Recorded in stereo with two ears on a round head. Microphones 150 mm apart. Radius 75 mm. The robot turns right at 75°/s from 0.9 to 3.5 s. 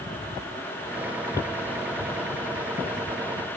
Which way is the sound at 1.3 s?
15° left (ahead or behind).